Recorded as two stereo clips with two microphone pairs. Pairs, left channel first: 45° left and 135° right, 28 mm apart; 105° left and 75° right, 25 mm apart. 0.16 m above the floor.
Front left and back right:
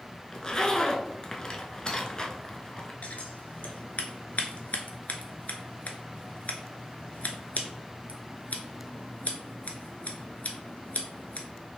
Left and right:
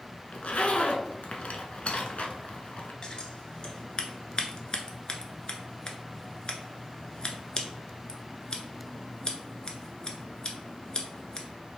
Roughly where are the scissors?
Ahead left.